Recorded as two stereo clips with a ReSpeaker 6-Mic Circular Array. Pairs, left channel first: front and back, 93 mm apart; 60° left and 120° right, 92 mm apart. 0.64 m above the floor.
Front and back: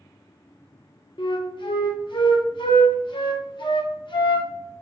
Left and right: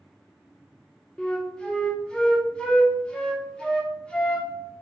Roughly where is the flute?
Ahead.